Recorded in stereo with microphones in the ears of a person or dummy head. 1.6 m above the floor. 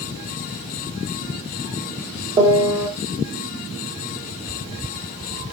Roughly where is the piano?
Centre.